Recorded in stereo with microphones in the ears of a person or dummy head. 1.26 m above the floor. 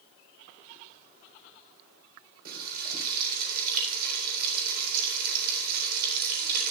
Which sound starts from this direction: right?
Frying, at 2.5 s.